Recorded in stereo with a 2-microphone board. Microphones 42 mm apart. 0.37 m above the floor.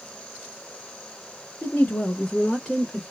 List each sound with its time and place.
1.6 s a woman speaking: 35° left (ahead or behind), 1.3 m; by 3.0 s 10° left (ahead or behind), 1.4 m